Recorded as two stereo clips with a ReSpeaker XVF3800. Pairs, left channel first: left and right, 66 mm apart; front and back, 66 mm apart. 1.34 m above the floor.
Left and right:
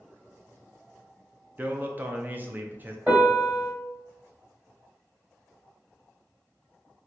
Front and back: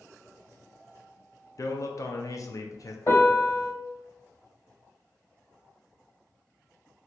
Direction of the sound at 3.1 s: 30° right.